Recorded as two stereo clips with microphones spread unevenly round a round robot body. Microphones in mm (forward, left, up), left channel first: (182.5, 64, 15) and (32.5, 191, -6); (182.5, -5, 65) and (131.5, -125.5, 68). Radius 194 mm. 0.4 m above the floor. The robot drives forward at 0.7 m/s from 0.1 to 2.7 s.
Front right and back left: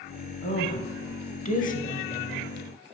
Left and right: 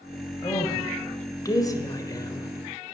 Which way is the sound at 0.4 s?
5° left.